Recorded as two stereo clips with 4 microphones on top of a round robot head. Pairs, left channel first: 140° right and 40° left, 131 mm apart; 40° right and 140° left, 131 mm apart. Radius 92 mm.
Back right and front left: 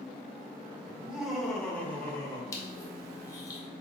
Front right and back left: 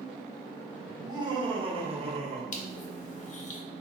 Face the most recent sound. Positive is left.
turn(degrees=-70)